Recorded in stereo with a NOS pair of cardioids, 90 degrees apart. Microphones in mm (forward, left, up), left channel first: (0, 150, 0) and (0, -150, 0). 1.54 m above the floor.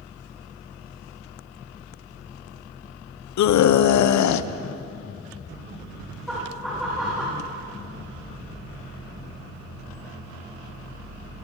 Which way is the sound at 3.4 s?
70° left.